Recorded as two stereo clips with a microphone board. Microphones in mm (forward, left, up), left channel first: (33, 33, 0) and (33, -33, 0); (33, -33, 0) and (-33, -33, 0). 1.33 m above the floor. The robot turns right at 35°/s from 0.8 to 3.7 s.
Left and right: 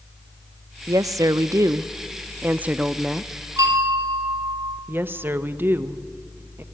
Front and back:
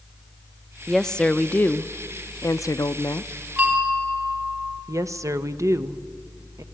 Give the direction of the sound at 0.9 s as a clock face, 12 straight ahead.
3 o'clock.